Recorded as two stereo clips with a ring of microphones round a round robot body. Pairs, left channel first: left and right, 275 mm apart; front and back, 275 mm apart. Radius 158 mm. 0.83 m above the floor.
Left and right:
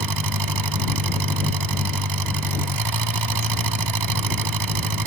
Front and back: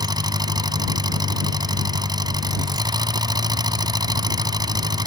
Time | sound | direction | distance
0.0 | an engine running | 105° right | ?